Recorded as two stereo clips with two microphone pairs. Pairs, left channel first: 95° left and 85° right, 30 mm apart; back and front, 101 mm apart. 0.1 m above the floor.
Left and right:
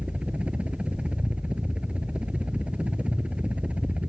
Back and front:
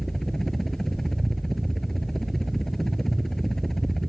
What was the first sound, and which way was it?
A helicopter, 95° right.